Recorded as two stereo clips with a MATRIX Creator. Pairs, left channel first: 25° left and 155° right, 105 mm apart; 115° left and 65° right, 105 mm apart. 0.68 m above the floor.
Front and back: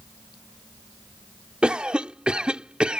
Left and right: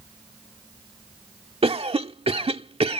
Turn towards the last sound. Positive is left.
turn(degrees=-75)